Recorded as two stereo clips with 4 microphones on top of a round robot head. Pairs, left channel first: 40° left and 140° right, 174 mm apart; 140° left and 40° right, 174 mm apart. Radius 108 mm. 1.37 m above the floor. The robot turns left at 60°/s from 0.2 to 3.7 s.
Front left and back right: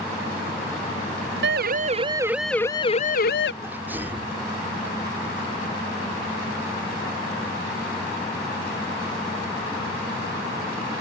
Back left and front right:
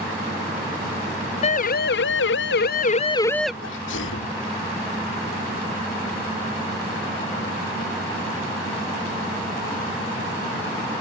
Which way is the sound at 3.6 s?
140° left.